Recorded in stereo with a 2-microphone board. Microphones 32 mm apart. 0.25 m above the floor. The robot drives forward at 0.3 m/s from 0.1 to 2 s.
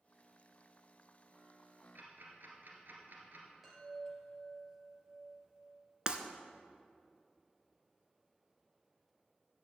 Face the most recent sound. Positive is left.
turn(degrees=-30)  # may be behind; listen again after turning